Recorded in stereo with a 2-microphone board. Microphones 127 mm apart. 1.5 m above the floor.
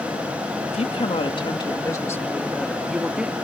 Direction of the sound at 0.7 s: 55° left (ahead or behind).